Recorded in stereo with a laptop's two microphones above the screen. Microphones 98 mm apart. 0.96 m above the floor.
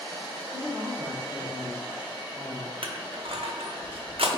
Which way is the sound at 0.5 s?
35° right (ahead or behind).